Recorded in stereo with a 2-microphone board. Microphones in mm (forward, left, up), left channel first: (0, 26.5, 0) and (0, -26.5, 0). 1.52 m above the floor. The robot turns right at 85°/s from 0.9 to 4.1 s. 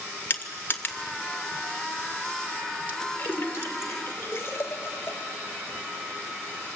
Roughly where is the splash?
Left.